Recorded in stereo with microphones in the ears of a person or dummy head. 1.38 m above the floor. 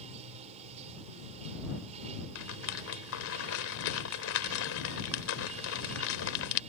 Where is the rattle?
75° left (ahead or behind).